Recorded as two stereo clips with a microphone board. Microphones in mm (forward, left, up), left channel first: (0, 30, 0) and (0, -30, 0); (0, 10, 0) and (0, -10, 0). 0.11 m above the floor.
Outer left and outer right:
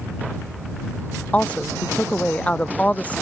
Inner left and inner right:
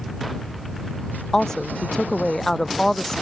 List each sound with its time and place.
1.3 s a woman speaking: 25° left (ahead or behind)